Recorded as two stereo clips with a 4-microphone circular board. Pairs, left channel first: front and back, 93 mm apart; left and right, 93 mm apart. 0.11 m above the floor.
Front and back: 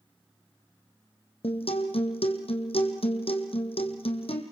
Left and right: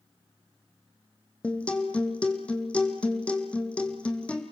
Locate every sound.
1.4 s a guitar: 10° left, 2.5 m